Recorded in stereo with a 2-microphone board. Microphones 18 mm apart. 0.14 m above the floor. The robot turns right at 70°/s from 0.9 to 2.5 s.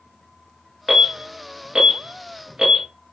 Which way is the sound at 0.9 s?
5° right (ahead or behind).